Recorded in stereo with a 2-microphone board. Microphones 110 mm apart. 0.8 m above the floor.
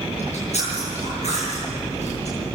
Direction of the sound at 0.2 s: 85° left.